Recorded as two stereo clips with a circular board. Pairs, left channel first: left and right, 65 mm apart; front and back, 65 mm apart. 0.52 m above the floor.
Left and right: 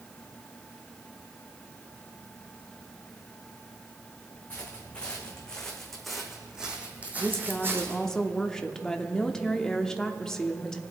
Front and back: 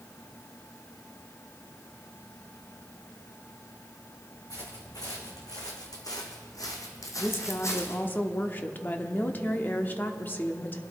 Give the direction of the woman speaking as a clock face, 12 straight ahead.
11 o'clock.